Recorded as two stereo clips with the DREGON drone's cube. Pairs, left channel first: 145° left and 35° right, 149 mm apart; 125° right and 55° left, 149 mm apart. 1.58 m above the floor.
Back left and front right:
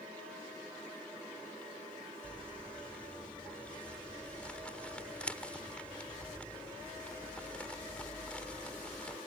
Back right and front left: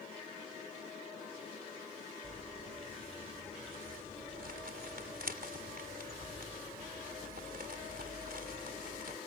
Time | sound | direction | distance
2.2 | crumpling | 65° left | ?